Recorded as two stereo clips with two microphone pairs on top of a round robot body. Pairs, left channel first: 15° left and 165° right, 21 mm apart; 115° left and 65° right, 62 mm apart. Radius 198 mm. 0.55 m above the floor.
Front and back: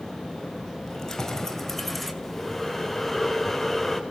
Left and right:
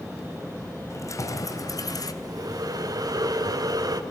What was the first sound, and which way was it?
Keys jangling, 75° left.